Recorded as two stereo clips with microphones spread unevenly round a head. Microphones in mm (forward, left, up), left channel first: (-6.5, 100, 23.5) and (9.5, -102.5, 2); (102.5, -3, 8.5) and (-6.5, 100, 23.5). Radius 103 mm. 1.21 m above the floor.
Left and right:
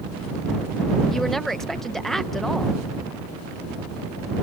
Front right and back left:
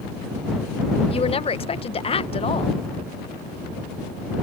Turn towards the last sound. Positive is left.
turn(degrees=5)